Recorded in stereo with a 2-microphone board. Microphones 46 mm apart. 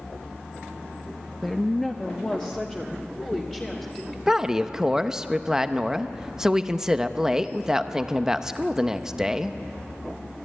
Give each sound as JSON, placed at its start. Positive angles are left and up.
{"t": 1.4, "sound": "a woman speaking", "side_deg": 5, "distance_m": 0.6}
{"t": 4.3, "sound": "a woman speaking", "side_deg": -10, "distance_m": 0.7}